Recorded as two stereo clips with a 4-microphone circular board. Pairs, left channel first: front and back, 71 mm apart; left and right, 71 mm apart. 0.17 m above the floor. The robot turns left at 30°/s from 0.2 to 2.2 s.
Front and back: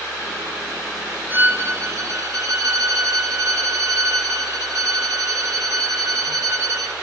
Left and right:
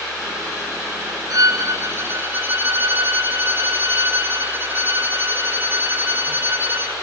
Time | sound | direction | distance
1.3 | a violin | 120° right | 2.0 m